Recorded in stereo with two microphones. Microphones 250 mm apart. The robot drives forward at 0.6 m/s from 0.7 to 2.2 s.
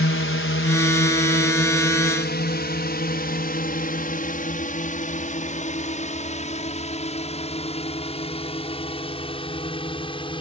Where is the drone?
55° left (ahead or behind); by 10.4 s 20° left (ahead or behind).